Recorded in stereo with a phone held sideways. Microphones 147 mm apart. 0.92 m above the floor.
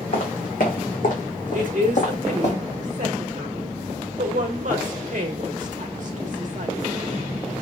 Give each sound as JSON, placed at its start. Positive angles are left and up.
{"t": 0.1, "sound": "footsteps", "side_deg": 70, "distance_m": 3.0}
{"t": 1.5, "sound": "a woman speaking", "side_deg": -60, "distance_m": 1.3}